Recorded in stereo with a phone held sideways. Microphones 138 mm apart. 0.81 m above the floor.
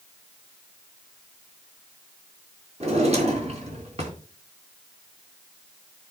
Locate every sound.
2.8 s a drawer: 50° right (ahead or behind), 3.5 m